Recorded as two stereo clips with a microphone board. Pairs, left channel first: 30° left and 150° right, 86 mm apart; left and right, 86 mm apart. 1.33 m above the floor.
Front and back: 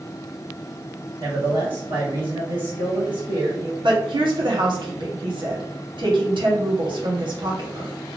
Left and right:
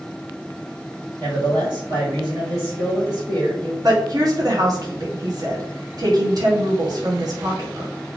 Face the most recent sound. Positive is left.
turn(degrees=-130)